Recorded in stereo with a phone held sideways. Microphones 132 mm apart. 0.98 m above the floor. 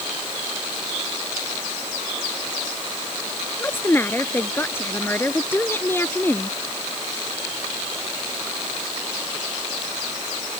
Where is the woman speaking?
15° left (ahead or behind).